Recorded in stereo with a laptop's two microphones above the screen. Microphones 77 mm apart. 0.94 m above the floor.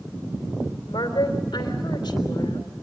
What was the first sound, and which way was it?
A woman speaking, 70° left (ahead or behind).